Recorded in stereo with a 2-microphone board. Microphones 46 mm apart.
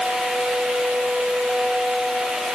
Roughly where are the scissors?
I don't hear scissors.